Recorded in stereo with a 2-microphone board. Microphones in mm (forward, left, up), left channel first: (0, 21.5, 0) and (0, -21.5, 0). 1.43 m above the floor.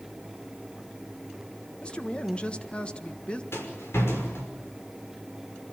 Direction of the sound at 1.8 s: 25° left (ahead or behind).